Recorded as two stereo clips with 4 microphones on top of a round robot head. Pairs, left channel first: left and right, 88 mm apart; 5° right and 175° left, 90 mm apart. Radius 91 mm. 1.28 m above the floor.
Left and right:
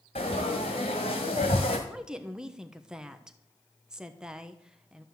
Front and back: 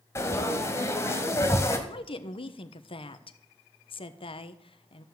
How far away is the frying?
About 1.7 m.